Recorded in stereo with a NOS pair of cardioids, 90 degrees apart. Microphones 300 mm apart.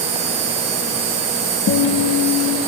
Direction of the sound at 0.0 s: 60° right.